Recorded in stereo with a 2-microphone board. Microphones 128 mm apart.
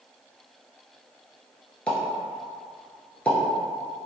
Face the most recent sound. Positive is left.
turn(degrees=10)  # may be behind; listen again after turning